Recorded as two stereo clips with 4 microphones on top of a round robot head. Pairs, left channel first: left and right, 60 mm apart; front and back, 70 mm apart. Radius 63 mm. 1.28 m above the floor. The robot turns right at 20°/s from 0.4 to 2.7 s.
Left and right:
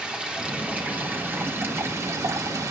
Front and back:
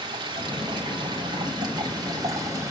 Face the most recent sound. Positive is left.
turn(degrees=-120)